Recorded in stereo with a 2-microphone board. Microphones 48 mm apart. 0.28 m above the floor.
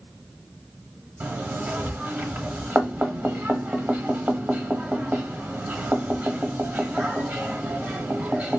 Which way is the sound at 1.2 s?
35° right (ahead or behind).